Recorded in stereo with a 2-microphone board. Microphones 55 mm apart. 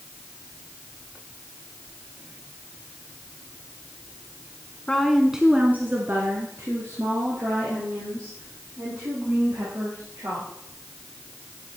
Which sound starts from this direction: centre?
A woman speaking, at 4.9 s.